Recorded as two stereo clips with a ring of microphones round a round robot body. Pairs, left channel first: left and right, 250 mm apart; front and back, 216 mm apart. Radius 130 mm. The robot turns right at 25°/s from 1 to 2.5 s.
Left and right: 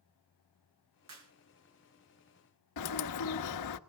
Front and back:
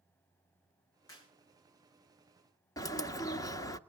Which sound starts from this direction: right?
A clap, at 1.1 s.